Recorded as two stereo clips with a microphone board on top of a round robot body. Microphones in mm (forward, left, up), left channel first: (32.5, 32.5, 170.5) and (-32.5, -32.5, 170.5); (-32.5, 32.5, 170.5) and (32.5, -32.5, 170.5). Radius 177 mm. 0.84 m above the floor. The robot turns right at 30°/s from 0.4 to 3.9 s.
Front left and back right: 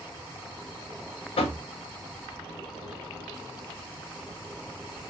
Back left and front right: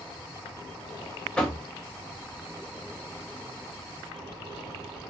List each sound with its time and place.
1.4 s knocking: 50° left, 0.6 m; by 1.6 s 60° left, 0.6 m